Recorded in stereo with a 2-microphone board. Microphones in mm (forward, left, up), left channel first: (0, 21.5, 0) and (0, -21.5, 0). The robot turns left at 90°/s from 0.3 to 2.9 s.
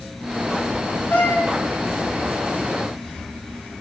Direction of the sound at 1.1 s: 120° left.